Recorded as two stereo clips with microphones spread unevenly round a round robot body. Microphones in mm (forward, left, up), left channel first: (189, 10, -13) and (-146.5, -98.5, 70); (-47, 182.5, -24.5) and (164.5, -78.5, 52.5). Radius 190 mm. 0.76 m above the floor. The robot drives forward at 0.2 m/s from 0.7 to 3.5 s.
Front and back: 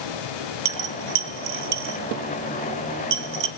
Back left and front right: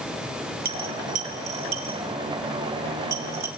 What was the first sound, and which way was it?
A dropped coin, 115° right.